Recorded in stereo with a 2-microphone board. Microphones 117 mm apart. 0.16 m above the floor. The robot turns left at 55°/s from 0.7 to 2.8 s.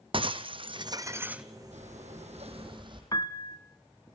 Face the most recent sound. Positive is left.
turn(degrees=30)  # may be behind; listen again after turning